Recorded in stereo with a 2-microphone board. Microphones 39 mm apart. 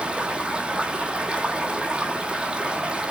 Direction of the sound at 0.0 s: 25° right (ahead or behind).